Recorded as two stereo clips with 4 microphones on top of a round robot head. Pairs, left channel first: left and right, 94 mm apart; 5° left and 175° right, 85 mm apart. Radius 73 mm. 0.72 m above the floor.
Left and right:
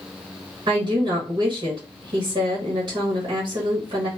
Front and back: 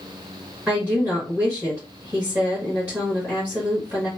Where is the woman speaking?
110° right, 1.7 m.